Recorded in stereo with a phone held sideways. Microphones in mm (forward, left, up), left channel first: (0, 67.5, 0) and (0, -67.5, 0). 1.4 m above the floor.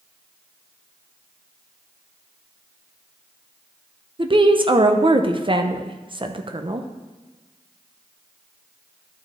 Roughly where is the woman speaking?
Right.